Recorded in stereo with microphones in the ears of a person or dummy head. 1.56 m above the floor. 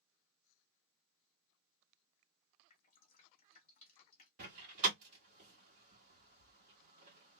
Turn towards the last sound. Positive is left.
turn(degrees=-45)  # may be behind; listen again after turning